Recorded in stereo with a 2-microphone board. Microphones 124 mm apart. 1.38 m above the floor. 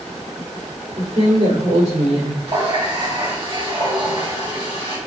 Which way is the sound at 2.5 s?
50° right (ahead or behind).